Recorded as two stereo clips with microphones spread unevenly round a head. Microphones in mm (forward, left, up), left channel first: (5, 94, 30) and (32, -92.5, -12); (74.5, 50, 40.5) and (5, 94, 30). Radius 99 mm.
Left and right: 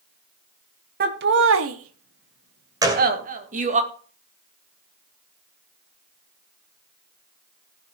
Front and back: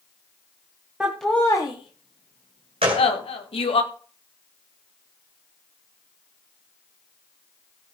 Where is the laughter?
130° right, 1.5 m; by 3.8 s 30° right, 3 m.